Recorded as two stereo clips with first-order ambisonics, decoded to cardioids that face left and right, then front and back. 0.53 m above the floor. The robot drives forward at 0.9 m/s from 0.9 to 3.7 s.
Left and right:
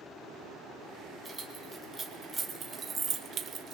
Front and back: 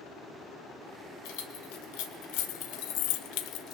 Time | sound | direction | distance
1.2 | keys jangling | 10° right | 3 m